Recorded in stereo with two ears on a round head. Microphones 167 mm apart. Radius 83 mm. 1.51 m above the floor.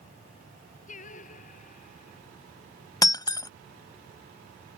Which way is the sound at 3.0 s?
20° left (ahead or behind).